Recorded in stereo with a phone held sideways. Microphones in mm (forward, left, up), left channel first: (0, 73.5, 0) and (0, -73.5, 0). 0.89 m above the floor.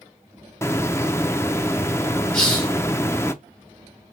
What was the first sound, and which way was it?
A hiss, 20° left (ahead or behind).